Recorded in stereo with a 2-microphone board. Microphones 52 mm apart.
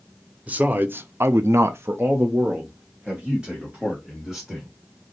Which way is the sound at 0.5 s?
30° right (ahead or behind).